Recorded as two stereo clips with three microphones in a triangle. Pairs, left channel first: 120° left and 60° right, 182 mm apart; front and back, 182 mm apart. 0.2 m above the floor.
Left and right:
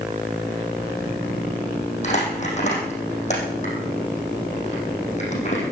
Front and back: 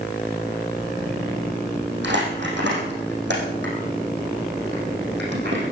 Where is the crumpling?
170° left, 5 m.